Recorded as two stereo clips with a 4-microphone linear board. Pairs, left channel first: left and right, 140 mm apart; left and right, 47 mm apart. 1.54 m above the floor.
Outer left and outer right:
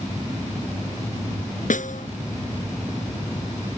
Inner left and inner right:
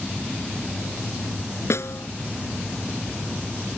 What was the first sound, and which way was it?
A snare drum, 70° left (ahead or behind).